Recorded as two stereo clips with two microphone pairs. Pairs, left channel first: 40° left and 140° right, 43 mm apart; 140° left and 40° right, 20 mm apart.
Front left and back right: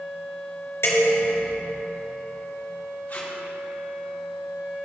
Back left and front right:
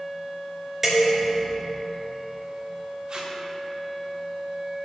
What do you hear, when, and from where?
0.8 s dishes clattering: 40° left, 2 m
3.1 s tape being pulled: 5° right, 3 m